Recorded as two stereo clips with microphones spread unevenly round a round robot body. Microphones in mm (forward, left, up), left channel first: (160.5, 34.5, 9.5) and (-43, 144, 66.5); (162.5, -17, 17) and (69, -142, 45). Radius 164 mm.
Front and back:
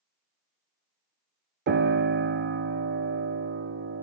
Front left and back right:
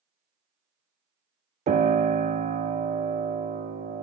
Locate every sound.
1.7 s a piano: 165° right, 0.6 m